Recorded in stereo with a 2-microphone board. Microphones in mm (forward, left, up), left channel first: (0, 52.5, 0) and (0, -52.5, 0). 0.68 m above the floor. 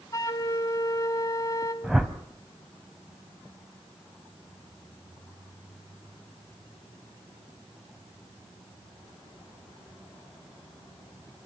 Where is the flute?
30° left (ahead or behind), 2 m.